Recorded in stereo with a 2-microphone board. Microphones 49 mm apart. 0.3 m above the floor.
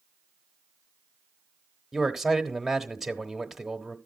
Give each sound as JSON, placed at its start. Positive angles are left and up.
{"t": 1.9, "sound": "a man speaking", "side_deg": -5, "distance_m": 1.0}